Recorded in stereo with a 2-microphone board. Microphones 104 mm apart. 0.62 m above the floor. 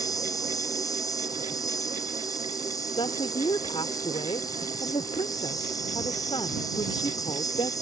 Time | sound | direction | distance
0.0 | an insect | 35° left (ahead or behind) | ?
3.0 | a woman speaking | 60° left (ahead or behind) | ?